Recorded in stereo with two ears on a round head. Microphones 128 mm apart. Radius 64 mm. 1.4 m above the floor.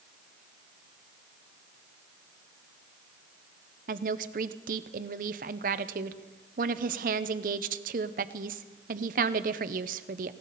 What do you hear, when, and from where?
3.9 s a woman speaking: 60° right (ahead or behind), 0.8 m